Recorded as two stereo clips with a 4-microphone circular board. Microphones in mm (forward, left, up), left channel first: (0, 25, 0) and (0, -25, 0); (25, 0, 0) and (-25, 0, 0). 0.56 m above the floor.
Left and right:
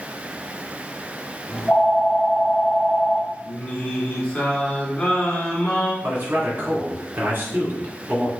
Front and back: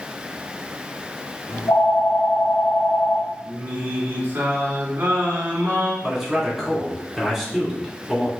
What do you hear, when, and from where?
1.5 s a phone ringing: 10° left, 0.7 m
3.5 s singing: 145° left, 1.7 m
6.0 s a man speaking: 90° right, 1.8 m